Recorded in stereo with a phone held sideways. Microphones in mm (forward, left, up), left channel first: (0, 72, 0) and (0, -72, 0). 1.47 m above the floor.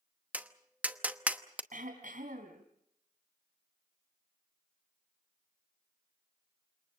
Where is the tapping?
10° right (ahead or behind), 0.9 m.